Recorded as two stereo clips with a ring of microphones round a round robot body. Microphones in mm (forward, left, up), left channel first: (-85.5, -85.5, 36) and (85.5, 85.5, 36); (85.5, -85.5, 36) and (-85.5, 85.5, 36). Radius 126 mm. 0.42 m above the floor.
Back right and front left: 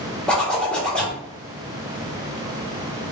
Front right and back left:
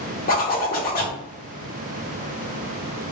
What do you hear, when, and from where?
0.3 s a zipper: 50° right, 1.0 m